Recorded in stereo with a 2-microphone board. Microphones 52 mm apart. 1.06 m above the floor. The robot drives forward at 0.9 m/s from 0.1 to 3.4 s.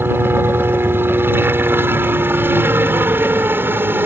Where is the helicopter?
45° right (ahead or behind); by 4.1 s 40° right (ahead or behind).